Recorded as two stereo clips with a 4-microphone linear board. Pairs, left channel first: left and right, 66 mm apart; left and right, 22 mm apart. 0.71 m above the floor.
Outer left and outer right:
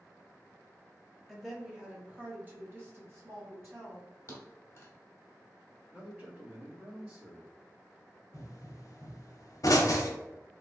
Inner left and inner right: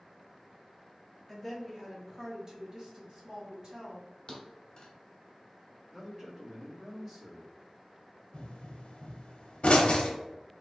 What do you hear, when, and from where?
1.3 s a woman speaking: centre (ahead or behind), 0.9 m; by 4.0 s 45° right (ahead or behind), 1.3 m
4.3 s a thud: 40° left (ahead or behind), 0.8 m
5.9 s a man speaking: 25° right (ahead or behind), 1.5 m
8.3 s a pop: 60° left (ahead or behind), 0.6 m